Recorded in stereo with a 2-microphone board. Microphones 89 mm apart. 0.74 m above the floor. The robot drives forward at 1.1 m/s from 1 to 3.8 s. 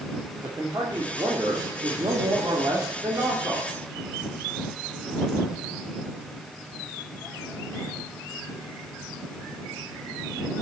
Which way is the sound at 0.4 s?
50° right (ahead or behind).